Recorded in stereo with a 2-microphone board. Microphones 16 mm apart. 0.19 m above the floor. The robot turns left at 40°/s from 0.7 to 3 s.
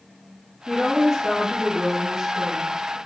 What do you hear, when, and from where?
0.7 s a woman speaking: 20° left, 3 m; by 3.0 s 70° right, 3 m